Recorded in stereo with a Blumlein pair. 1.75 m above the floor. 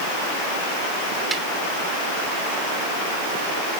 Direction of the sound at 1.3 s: 10° right.